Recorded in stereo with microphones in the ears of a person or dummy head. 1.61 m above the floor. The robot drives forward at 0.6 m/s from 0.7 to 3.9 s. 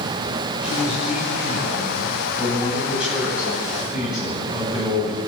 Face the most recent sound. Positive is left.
turn(degrees=-5)  # may be behind; listen again after turning